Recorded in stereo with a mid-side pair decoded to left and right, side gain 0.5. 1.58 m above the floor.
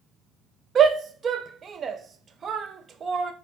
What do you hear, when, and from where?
0.8 s a shout: 40° right, 0.6 m